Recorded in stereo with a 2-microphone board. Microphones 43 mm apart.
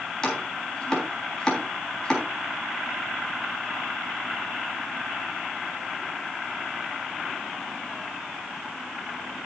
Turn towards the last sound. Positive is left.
turn(degrees=10)  # may be behind; listen again after turning